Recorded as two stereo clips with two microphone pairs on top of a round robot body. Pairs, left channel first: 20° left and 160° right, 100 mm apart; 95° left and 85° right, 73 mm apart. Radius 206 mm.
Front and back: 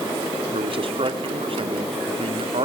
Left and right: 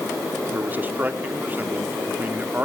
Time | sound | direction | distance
0.5 | a man speaking | 150° right | 1.9 m